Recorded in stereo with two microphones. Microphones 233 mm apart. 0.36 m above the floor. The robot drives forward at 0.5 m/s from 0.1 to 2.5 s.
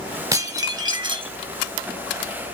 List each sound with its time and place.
0.3 s dishes clattering: 15° right (ahead or behind), 1.0 m; by 1.3 s 20° right (ahead or behind), 0.6 m